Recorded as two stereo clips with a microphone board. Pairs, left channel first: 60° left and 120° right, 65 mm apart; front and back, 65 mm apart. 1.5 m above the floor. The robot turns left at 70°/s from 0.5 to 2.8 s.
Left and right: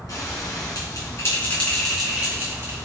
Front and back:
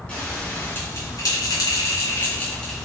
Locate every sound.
0.1 s a bell: 70° left, 4 m; by 2.9 s 90° right, 4 m